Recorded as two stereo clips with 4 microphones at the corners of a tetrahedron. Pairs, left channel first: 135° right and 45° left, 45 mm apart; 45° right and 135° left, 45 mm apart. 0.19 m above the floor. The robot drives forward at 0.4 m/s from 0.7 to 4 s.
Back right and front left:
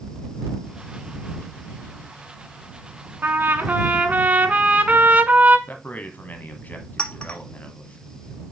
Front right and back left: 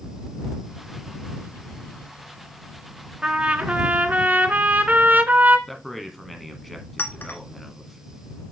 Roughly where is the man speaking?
Behind right.